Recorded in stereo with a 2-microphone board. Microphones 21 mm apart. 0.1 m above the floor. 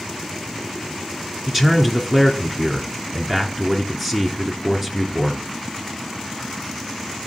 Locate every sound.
1.5 s a man speaking: 15° right (ahead or behind), 1.1 m